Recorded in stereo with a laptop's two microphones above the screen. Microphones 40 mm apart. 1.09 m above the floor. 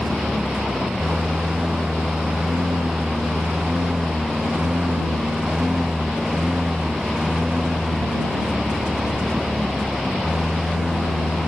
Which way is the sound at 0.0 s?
35° right (ahead or behind).